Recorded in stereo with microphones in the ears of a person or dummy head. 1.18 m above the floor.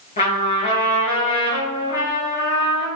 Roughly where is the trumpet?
Left.